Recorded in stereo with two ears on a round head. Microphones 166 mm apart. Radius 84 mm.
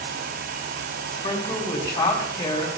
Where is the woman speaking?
30° left (ahead or behind), 5 m.